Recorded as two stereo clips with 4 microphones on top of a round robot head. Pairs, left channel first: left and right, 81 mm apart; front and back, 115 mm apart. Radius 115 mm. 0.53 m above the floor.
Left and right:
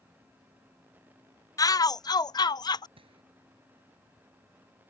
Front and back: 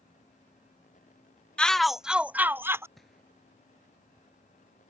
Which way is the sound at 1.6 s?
80° left.